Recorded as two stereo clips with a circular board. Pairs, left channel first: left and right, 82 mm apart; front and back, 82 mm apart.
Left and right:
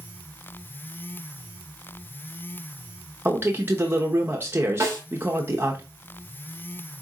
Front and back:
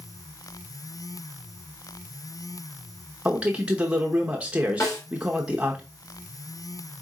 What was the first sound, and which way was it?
A man speaking, 120° right.